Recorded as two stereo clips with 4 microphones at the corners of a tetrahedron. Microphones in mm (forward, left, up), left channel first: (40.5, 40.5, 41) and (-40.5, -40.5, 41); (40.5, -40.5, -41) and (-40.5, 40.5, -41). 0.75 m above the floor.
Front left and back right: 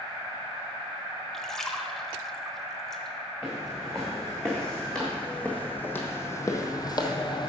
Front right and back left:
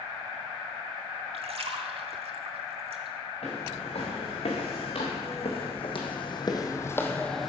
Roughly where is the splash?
Behind left.